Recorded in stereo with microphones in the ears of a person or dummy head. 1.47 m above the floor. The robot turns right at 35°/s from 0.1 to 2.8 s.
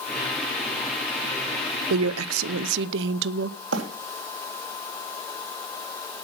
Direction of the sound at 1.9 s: 105° right.